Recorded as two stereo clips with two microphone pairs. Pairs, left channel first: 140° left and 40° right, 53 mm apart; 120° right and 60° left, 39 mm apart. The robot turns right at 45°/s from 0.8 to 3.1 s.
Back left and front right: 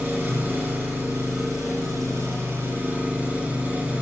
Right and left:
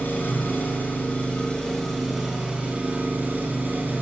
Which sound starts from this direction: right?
An engine running, at 0.0 s.